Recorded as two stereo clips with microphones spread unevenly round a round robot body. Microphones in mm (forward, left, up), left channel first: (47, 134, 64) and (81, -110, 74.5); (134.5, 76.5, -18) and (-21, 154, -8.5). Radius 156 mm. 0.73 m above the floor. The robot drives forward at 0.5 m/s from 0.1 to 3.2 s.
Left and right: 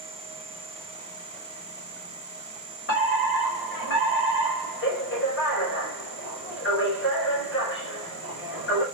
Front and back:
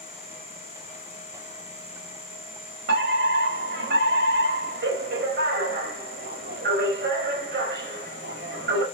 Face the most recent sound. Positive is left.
turn(degrees=145)